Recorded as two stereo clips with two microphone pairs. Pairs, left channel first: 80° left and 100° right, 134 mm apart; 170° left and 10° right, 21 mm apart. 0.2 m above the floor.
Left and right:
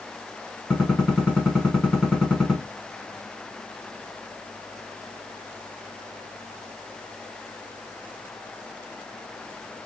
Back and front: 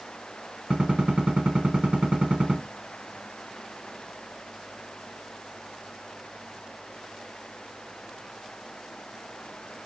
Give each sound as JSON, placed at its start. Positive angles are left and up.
{"t": 0.7, "sound": "a gunshot", "azimuth_deg": -15, "distance_m": 1.1}